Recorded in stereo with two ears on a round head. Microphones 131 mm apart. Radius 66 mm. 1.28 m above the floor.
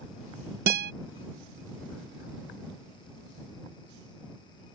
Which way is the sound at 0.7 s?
70° right (ahead or behind).